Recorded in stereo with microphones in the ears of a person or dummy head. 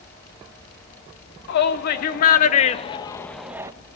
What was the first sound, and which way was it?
A shout, 60° left (ahead or behind).